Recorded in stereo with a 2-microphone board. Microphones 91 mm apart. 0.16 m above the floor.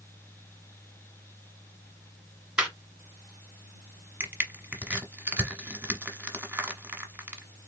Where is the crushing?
20° right (ahead or behind), 1.1 m.